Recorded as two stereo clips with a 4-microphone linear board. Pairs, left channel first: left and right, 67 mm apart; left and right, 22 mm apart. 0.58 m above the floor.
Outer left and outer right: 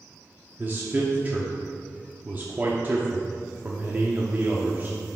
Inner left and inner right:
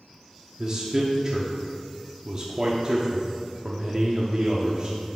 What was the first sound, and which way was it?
A man speaking, 30° right (ahead or behind).